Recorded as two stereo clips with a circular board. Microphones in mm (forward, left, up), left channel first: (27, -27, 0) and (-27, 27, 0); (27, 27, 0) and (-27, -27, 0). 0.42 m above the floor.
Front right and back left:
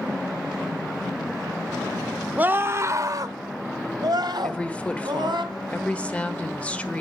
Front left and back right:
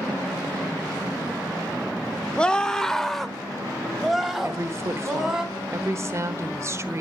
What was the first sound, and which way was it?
A scream, 105° left.